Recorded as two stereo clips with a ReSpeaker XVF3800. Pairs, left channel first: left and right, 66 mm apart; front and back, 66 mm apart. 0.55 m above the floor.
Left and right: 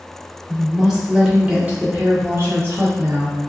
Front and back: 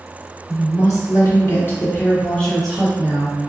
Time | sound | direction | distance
0.5 | a woman speaking | straight ahead | 1.4 m